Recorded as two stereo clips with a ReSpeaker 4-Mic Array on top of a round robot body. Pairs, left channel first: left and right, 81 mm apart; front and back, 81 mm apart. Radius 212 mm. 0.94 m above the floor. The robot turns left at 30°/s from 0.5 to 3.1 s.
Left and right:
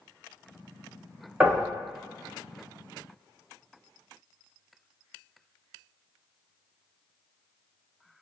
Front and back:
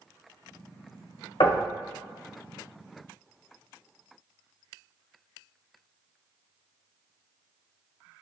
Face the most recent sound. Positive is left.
turn(degrees=-65)